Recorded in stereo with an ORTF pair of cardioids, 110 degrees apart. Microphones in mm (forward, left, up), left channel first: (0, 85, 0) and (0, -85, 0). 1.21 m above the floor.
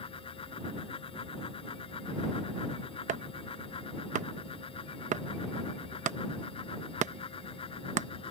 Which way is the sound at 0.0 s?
35° left.